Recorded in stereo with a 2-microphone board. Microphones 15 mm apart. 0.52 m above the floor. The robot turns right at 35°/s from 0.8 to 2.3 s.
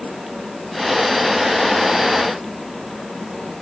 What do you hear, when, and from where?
Only background noise.